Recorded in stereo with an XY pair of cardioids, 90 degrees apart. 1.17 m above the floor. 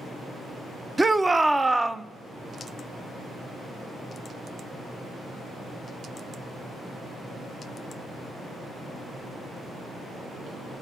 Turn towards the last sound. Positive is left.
turn(degrees=-20)